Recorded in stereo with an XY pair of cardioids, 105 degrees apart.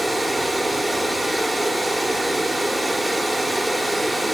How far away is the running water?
About 1.5 m.